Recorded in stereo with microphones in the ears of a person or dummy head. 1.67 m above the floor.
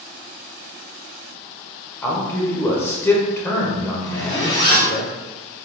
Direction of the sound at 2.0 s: 20° left (ahead or behind).